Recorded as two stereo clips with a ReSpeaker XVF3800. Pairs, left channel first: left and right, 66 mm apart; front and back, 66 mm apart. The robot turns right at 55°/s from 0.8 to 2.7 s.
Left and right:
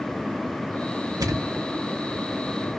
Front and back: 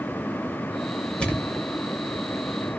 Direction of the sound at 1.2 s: 75° right.